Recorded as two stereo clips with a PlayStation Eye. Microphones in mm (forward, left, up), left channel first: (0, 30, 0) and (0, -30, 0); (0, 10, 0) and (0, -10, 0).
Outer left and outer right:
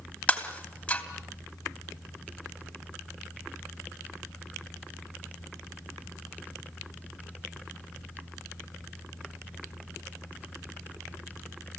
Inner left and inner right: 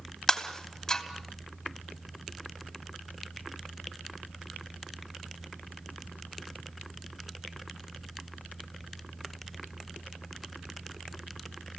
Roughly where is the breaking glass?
Left.